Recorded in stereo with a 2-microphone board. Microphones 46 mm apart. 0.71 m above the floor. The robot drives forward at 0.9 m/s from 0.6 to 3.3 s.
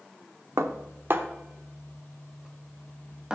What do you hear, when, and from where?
0.6 s dishes clattering: 70° right (ahead or behind), 0.9 m; by 3.4 s 20° right (ahead or behind), 3 m